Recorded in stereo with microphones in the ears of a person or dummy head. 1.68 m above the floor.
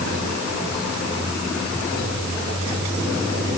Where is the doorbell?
No doorbell in this recording.